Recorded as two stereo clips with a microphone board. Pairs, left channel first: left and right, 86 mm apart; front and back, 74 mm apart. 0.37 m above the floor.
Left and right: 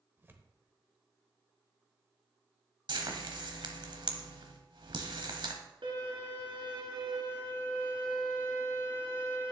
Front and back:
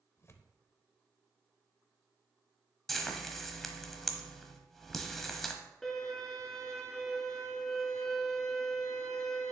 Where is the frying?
90° right, 1.1 m.